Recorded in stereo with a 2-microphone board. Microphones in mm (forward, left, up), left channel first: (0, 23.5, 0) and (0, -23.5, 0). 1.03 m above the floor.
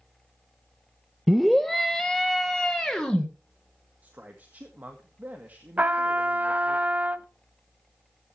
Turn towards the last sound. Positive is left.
turn(degrees=-35)  # may be behind; listen again after turning